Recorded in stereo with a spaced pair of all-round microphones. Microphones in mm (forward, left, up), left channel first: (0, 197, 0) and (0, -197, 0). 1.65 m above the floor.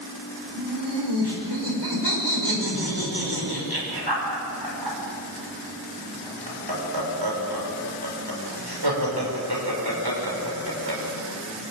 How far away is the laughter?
About 6 m.